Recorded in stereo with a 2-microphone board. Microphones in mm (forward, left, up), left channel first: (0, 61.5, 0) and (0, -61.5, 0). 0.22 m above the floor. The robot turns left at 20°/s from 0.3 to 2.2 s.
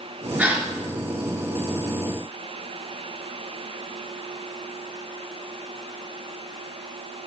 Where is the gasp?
10° right (ahead or behind), 3 m; by 0.7 s 15° right (ahead or behind), 3 m.